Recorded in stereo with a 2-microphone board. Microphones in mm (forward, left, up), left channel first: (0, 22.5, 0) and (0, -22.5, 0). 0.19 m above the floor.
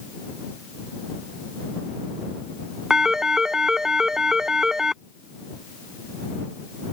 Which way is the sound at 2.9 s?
15° right (ahead or behind).